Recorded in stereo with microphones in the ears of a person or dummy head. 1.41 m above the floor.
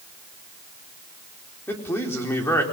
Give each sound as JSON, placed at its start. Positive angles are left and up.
{"t": 1.7, "sound": "a man speaking", "side_deg": 15, "distance_m": 4.5}